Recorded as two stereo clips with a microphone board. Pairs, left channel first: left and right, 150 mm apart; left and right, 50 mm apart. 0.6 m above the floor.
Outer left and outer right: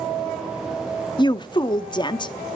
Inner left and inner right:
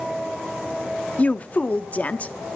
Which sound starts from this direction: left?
A woman speaking, at 1.2 s.